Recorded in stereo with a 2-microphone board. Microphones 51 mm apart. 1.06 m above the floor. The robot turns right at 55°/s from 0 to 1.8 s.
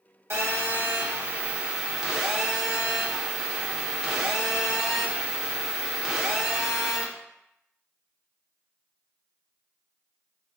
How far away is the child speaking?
No child speaking in this recording.